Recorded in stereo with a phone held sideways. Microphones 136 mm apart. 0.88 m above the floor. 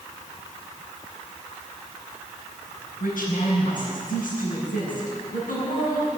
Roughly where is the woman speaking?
Left.